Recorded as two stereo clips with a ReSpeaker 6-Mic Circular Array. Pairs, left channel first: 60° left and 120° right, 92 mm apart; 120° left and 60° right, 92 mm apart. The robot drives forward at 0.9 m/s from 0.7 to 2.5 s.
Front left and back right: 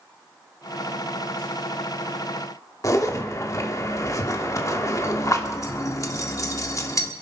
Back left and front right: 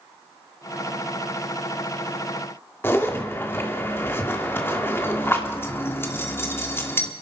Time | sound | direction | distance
2.8 | a zipper | 75° left | 1.5 m